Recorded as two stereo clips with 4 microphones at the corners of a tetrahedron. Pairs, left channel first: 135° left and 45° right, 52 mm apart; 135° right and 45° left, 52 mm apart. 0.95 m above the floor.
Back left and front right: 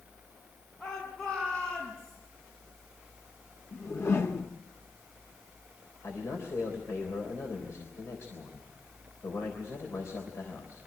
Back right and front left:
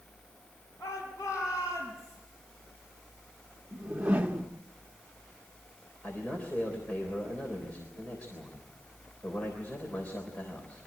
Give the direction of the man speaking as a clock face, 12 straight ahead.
7 o'clock.